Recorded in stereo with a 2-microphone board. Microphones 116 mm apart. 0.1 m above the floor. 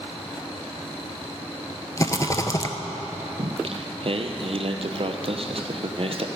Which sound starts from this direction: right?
Singing, at 3.4 s.